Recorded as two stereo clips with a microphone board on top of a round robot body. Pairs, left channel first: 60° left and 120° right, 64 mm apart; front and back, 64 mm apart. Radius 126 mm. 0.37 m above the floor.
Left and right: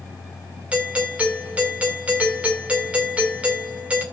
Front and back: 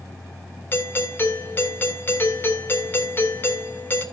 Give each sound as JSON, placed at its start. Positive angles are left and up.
{"t": 0.7, "sound": "a doorbell", "azimuth_deg": -50, "distance_m": 3.0}